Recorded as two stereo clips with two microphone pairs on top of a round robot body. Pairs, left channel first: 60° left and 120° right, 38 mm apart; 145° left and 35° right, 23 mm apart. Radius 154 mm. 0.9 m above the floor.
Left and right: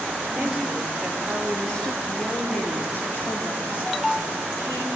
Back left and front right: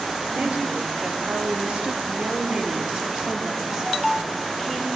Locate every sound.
0.3 s a woman speaking: 40° right, 2.5 m; by 4.9 s 40° left, 3 m